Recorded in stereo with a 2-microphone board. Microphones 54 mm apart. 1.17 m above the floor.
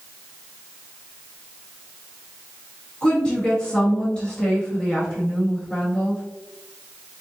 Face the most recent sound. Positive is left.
turn(degrees=15)  # may be behind; listen again after turning